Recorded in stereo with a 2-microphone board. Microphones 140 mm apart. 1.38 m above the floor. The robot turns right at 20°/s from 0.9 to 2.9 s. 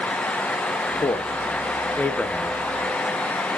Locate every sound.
1.0 s a man speaking: 35° left (ahead or behind), 0.8 m; by 2.6 s centre (ahead or behind), 0.8 m